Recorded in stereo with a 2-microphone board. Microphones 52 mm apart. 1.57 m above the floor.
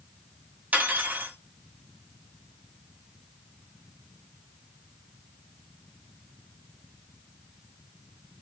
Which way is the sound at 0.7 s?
30° right (ahead or behind).